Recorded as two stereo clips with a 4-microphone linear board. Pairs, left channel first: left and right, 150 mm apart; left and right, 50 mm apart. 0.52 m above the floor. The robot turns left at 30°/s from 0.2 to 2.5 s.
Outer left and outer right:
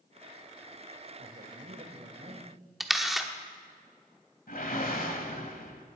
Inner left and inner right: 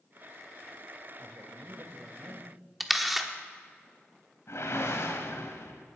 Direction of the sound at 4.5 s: 70° left (ahead or behind).